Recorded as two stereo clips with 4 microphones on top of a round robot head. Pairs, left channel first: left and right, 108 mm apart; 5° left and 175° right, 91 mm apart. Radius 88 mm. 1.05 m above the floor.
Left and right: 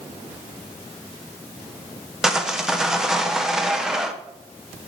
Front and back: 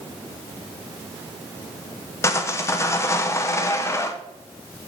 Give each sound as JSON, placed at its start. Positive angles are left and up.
{"t": 2.2, "sound": "sawing", "azimuth_deg": -10, "distance_m": 0.9}